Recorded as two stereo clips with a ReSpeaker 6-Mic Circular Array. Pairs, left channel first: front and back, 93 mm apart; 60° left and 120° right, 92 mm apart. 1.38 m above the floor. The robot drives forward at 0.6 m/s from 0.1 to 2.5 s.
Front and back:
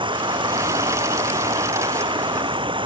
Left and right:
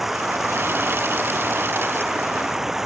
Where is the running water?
150° left; by 2.9 s 155° left.